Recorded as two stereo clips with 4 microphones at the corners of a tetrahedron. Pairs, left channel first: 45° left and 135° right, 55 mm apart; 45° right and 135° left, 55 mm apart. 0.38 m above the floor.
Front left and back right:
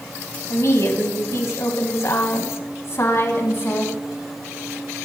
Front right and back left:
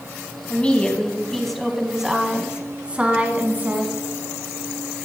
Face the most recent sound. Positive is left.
turn(degrees=85)